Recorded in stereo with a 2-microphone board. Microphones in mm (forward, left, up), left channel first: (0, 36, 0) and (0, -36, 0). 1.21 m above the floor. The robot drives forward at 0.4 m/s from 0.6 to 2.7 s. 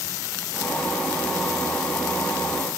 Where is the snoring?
No snoring in this recording.